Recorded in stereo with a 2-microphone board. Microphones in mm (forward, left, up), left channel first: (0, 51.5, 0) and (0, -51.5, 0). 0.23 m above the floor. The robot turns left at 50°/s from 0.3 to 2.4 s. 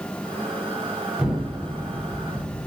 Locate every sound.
1.2 s an explosion: 170° right, 1.3 m; by 2.7 s 130° left, 1.3 m